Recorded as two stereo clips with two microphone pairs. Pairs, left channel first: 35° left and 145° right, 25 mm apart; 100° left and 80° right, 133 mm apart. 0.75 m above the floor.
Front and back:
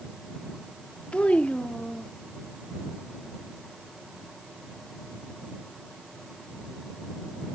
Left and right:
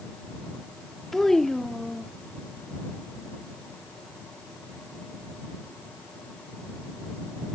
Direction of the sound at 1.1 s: 10° left.